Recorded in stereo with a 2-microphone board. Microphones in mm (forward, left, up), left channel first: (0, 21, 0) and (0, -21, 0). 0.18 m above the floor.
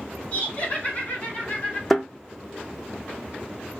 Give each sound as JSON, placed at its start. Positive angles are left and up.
{"t": 0.3, "sound": "laughter", "side_deg": 40, "distance_m": 1.8}
{"t": 1.9, "sound": "a thud", "side_deg": 5, "distance_m": 0.7}